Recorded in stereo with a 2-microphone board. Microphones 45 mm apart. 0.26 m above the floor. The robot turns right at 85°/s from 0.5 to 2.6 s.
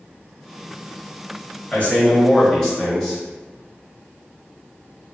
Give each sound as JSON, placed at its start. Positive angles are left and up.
{"t": 1.7, "sound": "a man speaking", "side_deg": 25, "distance_m": 0.9}